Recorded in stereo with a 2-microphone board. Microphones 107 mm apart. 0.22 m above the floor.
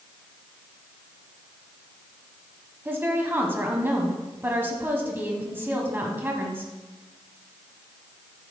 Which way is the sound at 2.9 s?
20° right (ahead or behind).